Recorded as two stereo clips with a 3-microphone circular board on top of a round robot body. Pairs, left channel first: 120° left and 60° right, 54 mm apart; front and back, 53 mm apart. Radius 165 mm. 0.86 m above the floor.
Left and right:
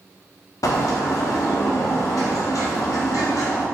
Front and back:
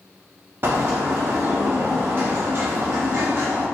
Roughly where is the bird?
Behind left.